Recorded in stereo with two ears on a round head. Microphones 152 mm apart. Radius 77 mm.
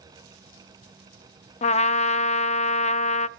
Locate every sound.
1.6 s a trumpet: 40° left (ahead or behind), 0.5 m